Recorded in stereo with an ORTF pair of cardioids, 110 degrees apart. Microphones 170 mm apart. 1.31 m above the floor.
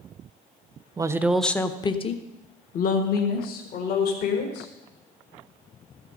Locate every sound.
1.0 s a woman speaking: 25° right, 0.8 m; by 4.7 s 70° left, 2.5 m